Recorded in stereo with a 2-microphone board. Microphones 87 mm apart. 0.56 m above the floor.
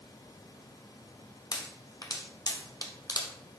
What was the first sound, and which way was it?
A pop, 50° left (ahead or behind).